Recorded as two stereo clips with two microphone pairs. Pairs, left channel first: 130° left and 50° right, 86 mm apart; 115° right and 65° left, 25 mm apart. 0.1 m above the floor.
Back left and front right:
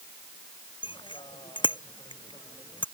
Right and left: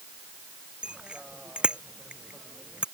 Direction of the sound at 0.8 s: 110° left.